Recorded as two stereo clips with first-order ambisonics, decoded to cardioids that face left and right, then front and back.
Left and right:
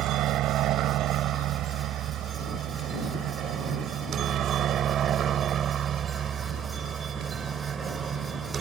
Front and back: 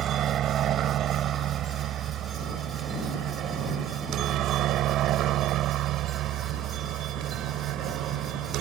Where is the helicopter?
130° right; by 8.6 s 155° right.